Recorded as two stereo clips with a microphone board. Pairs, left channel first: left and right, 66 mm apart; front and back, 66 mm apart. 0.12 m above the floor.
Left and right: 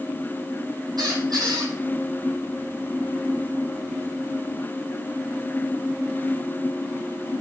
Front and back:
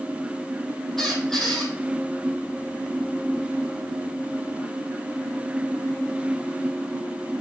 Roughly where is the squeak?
Right.